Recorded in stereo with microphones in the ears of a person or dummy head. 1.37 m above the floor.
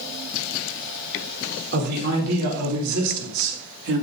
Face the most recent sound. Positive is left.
turn(degrees=-80)